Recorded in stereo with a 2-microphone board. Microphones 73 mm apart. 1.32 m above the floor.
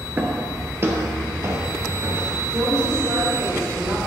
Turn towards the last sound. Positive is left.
turn(degrees=-65)  # may be behind; listen again after turning